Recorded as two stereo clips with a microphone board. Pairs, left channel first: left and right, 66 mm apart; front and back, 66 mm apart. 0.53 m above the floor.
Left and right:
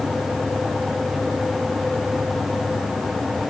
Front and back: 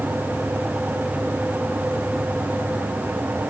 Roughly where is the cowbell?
I don't hear a cowbell.